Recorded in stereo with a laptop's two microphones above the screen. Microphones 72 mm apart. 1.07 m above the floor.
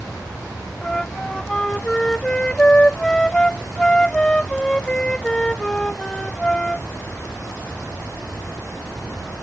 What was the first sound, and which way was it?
A flute, 10° left (ahead or behind).